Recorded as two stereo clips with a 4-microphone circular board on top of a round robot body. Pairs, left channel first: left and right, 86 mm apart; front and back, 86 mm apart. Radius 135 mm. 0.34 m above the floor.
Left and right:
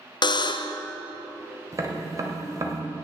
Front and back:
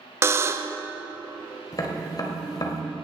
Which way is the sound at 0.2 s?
120° left.